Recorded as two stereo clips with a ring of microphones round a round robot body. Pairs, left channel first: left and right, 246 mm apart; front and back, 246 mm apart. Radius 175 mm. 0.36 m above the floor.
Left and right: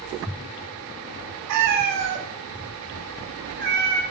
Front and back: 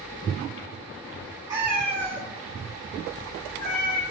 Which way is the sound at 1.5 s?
100° right.